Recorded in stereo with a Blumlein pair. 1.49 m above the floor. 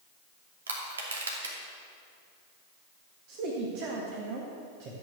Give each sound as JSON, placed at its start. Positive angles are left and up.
{"t": 0.7, "sound": "crushing", "azimuth_deg": -65, "distance_m": 2.5}
{"t": 3.3, "sound": "a man speaking", "azimuth_deg": -45, "distance_m": 2.0}